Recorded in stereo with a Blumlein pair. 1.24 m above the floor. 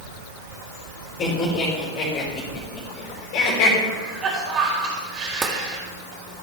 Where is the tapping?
15° right, 1.7 m.